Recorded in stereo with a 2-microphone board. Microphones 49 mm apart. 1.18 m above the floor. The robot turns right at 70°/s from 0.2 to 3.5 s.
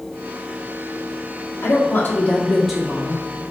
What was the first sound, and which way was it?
A woman speaking, 100° left.